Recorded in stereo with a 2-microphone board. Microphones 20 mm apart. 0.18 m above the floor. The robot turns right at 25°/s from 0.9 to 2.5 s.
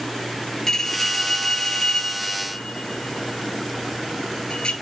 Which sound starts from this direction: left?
A bell, at 0.7 s.